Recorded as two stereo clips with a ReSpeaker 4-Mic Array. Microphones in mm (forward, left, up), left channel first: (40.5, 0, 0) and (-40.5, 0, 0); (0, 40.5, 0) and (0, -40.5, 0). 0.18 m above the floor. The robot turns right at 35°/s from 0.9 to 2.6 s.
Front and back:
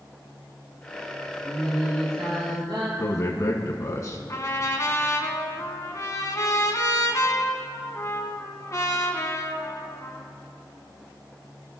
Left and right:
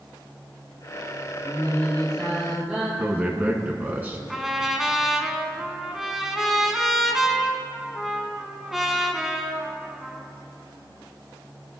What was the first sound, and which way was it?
Singing, 150° left.